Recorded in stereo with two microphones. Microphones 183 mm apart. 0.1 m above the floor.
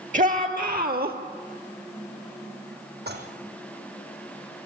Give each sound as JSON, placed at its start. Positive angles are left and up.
{"t": 0.1, "sound": "a shout", "side_deg": -45, "distance_m": 2.0}
{"t": 3.1, "sound": "dishes clattering", "side_deg": -65, "distance_m": 3.0}